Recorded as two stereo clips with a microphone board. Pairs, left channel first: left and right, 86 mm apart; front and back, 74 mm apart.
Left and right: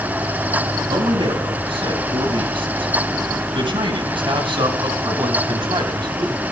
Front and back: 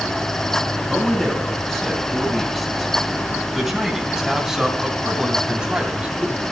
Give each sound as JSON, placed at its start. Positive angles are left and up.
{"t": 0.8, "sound": "a man speaking", "azimuth_deg": -85, "distance_m": 5.5}